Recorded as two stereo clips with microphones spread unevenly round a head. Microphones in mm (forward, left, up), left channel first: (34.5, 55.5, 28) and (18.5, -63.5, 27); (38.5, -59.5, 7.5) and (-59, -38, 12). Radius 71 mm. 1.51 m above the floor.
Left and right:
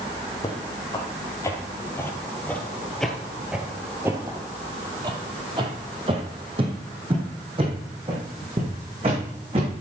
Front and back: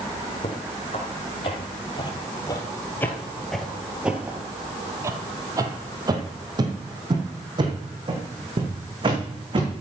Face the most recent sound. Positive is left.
turn(degrees=-155)